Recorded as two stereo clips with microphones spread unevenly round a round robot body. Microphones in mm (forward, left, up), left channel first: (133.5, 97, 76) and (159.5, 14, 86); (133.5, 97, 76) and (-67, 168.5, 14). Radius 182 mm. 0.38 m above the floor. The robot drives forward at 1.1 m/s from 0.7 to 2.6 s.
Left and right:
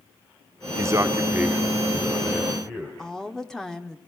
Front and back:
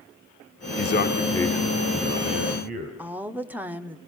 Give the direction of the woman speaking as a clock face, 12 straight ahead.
6 o'clock.